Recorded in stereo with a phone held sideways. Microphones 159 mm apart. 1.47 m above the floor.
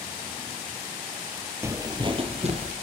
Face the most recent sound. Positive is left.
turn(degrees=-50)  # may be behind; listen again after turning